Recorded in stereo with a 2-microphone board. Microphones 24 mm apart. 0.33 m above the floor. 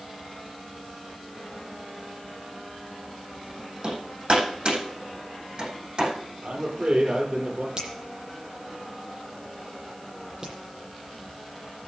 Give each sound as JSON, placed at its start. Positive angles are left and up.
{"t": 3.8, "sound": "hammering", "side_deg": -45, "distance_m": 9.0}
{"t": 6.4, "sound": "a man speaking", "side_deg": -60, "distance_m": 7.0}
{"t": 7.8, "sound": "a finger snap", "side_deg": -30, "distance_m": 8.0}